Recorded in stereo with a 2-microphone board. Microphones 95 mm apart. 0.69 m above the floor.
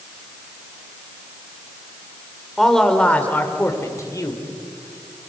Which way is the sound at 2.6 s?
Centre (ahead or behind).